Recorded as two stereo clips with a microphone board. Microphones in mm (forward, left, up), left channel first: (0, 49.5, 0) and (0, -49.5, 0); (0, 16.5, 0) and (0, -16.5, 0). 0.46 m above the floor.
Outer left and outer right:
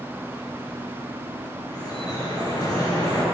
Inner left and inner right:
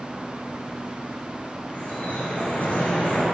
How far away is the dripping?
About 6 m.